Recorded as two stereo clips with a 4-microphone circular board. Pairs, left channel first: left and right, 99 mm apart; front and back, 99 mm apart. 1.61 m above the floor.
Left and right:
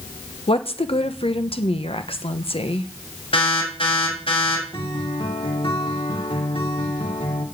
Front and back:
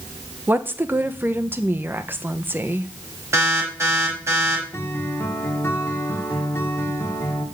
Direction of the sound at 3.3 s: 115° left.